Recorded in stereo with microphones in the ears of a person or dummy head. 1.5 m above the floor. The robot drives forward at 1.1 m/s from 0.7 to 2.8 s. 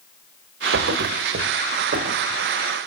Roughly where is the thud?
Right.